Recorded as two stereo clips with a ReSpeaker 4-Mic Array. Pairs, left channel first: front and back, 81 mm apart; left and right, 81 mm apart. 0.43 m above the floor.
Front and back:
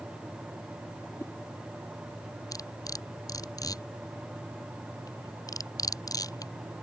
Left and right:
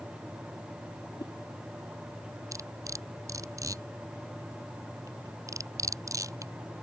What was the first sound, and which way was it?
A whoosh, 55° left.